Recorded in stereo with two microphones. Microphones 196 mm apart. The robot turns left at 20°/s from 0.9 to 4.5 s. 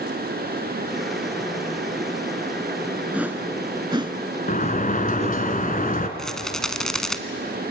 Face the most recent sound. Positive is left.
turn(degrees=5)  # may be behind; listen again after turning